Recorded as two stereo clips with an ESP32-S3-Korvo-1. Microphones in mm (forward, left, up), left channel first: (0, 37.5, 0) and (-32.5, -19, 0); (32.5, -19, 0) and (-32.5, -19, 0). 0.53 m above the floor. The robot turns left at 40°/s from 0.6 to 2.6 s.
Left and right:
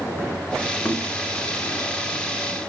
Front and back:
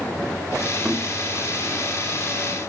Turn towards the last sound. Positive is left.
turn(degrees=40)